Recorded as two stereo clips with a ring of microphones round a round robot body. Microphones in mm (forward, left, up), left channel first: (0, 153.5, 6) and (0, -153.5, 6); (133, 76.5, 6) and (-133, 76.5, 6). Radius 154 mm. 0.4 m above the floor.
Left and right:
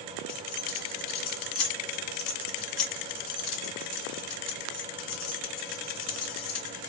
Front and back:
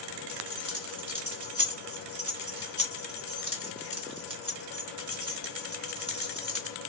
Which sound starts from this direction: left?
Keys jangling, at 0.3 s.